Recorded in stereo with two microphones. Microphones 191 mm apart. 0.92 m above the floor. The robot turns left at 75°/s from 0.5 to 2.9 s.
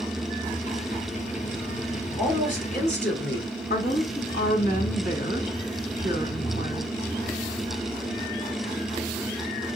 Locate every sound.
2.2 s a woman speaking: 170° left, 2.5 m; by 3.5 s 115° left, 2.5 m
3.7 s a woman speaking: 45° left (ahead or behind), 1.7 m